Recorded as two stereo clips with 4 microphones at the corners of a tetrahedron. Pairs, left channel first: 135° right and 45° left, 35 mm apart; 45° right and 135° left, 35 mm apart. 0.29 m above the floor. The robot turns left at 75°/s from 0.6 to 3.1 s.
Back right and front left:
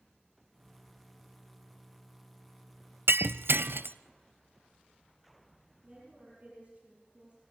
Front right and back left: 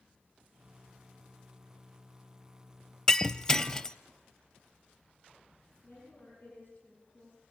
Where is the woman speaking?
20° right, 7.5 m.